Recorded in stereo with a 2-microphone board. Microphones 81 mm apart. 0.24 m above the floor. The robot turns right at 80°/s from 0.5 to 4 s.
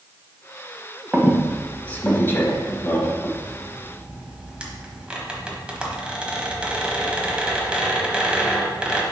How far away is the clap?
I don't hear a clap.